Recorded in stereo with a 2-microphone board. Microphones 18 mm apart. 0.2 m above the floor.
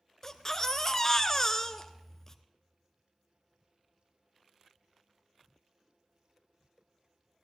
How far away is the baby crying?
About 0.8 m.